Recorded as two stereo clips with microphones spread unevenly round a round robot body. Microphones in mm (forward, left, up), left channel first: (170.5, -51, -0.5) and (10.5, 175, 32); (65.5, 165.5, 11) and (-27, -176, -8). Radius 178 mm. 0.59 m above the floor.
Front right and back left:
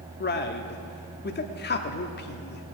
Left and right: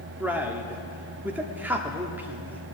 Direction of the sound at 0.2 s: 25° right.